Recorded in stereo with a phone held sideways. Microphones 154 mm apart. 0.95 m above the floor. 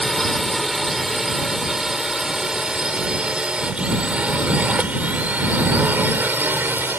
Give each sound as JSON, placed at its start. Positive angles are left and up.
{"t": 0.0, "sound": "a drone", "side_deg": 0}